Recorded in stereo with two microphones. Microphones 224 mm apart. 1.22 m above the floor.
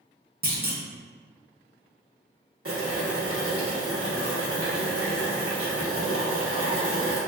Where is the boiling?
80° right, 1.0 m.